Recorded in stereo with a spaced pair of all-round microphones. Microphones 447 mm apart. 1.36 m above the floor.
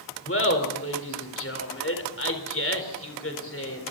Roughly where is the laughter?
Left.